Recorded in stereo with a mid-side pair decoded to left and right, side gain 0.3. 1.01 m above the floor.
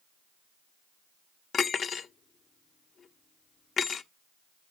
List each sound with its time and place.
1.5 s cutlery clinking: 65° left, 0.7 m